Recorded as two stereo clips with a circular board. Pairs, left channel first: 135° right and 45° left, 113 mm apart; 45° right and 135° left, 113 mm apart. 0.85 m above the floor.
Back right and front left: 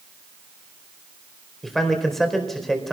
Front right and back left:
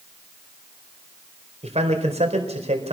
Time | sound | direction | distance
1.6 | a man speaking | 135° left | 4.5 m